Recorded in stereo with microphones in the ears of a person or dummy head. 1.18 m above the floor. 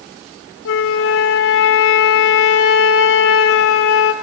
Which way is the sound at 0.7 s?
70° left (ahead or behind).